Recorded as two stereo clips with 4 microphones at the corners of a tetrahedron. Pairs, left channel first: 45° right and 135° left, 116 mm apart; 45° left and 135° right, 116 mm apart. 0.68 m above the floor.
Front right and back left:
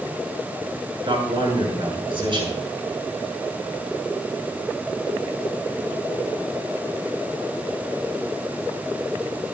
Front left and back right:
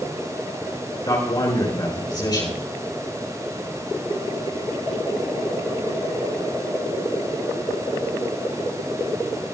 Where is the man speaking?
95° left, 7.5 m.